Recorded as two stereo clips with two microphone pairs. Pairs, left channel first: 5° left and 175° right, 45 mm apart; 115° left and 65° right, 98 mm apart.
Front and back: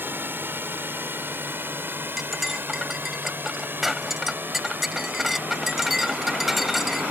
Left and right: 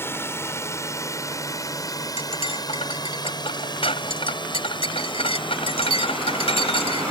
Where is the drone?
175° left; by 7.1 s 140° left.